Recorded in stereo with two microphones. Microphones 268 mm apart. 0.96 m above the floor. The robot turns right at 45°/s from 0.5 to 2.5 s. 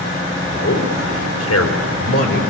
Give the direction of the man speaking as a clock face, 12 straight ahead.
10 o'clock.